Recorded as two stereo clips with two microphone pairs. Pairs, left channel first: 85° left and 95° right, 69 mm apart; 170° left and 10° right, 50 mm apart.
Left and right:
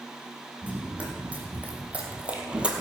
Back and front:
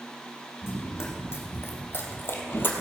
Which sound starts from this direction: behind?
Running footsteps, at 0.6 s.